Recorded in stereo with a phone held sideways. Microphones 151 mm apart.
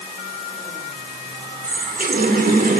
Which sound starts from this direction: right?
A running tap, at 1.6 s.